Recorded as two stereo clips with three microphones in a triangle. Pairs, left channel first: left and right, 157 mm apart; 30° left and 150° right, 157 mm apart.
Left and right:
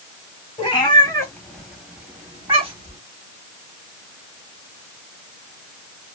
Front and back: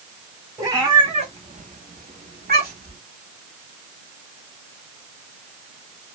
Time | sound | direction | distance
0.6 | a cat meowing | 140° left | 1.0 m